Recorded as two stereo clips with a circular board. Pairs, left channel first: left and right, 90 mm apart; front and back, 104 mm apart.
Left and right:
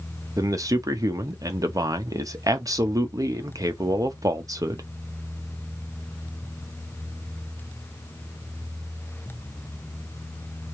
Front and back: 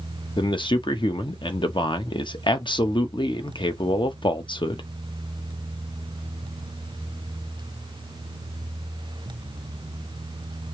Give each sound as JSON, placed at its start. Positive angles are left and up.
{"t": 0.4, "sound": "a man speaking", "azimuth_deg": -40, "distance_m": 0.8}